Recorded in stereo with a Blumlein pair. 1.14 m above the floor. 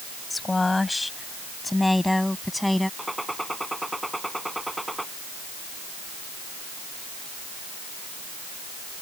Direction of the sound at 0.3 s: 10° left.